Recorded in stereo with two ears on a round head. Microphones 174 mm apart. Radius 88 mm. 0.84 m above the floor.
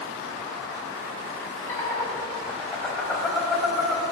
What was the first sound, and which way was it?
Laughter, 15° left (ahead or behind).